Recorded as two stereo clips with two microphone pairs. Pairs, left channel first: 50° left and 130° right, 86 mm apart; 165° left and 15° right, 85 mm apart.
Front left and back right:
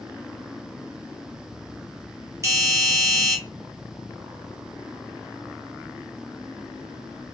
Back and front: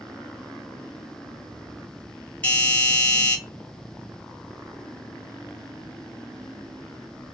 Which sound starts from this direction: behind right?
A doorbell, at 2.4 s.